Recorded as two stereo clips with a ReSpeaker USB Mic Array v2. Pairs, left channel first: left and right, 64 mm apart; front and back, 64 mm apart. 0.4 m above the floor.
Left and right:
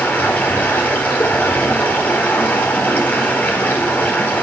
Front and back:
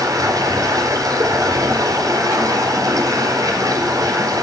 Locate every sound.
0.0 s running water: 155° left, 4 m